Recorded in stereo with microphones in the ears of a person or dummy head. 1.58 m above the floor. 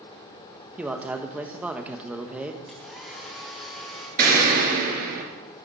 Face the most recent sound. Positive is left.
turn(degrees=-45)  # may be behind; listen again after turning